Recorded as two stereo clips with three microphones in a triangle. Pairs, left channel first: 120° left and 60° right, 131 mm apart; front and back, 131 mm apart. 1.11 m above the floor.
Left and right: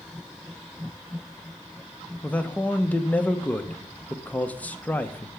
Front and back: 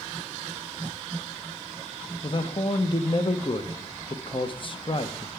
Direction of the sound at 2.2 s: 40° left.